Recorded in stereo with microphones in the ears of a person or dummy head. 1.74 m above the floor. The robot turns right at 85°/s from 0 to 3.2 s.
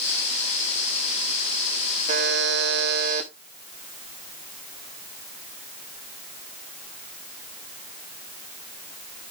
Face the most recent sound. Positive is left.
turn(degrees=-40)